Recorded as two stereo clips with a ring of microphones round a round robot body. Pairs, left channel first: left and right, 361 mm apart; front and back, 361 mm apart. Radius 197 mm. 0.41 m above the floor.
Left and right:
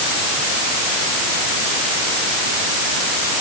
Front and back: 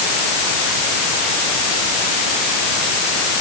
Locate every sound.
Only background noise.